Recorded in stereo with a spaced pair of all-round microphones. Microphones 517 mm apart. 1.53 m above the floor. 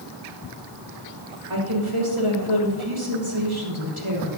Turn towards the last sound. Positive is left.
turn(degrees=-70)  # may be behind; listen again after turning